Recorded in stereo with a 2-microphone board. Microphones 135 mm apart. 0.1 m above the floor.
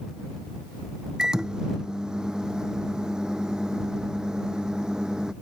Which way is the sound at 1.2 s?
5° right (ahead or behind).